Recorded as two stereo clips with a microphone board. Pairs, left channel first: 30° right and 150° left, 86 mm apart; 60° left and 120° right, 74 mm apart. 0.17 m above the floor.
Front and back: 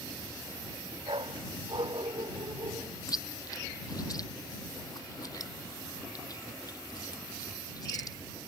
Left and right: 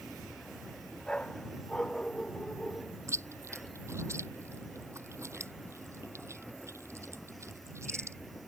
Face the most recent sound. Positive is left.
turn(degrees=-70)